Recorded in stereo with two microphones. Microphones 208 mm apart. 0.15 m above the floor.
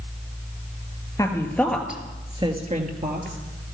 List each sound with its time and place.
1.2 s a woman speaking: 15° left (ahead or behind), 2.5 m; by 3.4 s 45° right (ahead or behind), 2.5 m